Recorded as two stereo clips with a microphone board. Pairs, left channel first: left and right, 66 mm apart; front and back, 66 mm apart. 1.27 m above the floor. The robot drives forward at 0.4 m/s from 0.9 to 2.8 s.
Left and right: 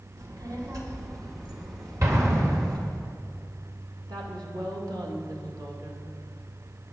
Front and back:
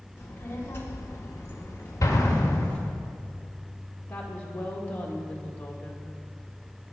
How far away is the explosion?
About 1.8 m.